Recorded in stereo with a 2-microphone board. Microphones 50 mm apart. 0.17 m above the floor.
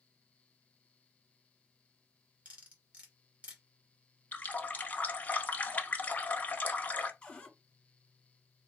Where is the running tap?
30° left (ahead or behind), 0.8 m.